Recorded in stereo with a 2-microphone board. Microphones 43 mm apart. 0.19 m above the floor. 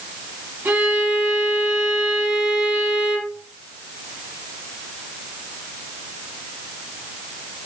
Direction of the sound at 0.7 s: 75° right (ahead or behind).